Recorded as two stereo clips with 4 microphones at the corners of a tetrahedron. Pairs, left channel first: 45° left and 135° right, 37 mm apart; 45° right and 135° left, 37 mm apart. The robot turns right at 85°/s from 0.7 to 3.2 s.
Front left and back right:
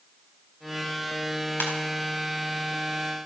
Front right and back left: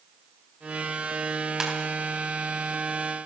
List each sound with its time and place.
1.6 s a ringtone: 60° left, 3.5 m; by 1.7 s 70° left, 3.5 m